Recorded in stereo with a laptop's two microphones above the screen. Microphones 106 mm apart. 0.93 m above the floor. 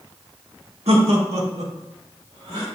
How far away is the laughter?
About 1.6 m.